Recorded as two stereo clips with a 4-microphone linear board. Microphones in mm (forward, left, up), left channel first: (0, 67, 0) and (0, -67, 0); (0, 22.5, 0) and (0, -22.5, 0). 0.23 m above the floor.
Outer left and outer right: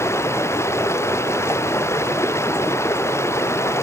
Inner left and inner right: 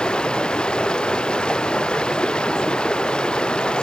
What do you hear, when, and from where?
0.0 s running water: 20° left (ahead or behind)